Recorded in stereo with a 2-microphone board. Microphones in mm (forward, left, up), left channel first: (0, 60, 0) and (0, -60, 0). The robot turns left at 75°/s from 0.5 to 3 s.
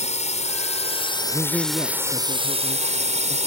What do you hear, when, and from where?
0.0 s a drone: 90° left; by 3.5 s 95° right
1.3 s a man speaking: 165° right; by 3.4 s 65° left